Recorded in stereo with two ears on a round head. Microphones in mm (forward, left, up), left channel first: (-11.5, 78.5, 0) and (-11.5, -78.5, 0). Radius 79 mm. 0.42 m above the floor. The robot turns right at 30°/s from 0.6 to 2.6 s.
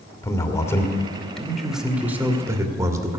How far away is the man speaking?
About 1.4 m.